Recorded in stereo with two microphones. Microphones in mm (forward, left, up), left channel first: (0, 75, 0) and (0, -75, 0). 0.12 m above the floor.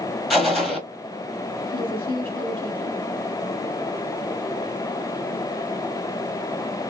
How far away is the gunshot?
About 0.8 m.